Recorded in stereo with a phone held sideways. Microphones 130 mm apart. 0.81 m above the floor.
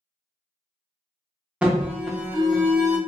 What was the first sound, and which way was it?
An alarm, 10° right (ahead or behind).